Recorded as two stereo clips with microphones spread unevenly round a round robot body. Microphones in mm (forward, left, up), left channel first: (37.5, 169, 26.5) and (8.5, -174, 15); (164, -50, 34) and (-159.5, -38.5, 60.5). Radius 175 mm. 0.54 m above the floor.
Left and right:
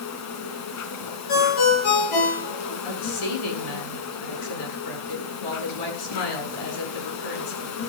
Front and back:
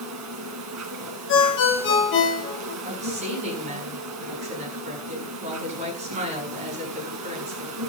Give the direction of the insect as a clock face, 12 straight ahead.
8 o'clock.